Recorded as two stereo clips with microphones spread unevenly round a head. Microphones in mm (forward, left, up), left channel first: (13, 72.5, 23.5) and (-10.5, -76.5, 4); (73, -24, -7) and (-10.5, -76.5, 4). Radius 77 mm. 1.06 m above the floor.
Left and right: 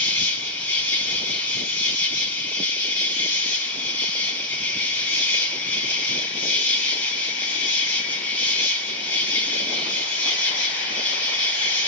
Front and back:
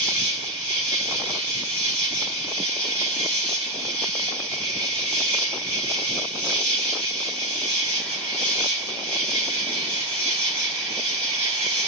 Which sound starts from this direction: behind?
An insect, at 0.0 s.